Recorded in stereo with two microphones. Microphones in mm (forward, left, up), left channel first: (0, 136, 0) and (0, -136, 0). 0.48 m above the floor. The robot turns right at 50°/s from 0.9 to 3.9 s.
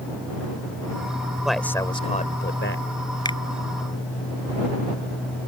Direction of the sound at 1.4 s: 5° right.